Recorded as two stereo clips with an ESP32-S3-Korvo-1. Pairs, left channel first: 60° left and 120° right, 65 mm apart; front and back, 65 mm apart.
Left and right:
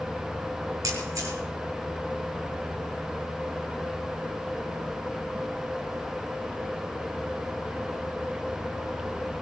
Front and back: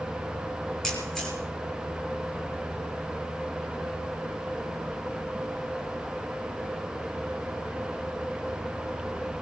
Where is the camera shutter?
80° right, 6.5 m.